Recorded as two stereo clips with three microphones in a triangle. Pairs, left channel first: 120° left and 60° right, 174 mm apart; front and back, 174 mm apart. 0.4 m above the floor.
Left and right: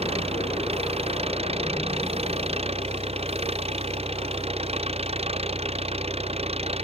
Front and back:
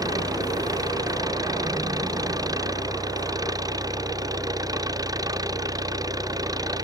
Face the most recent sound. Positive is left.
turn(degrees=-110)